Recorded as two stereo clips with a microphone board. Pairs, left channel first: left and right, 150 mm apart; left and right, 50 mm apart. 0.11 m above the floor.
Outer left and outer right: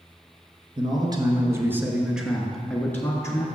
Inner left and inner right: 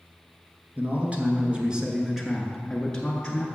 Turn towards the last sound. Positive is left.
turn(degrees=20)  # may be behind; listen again after turning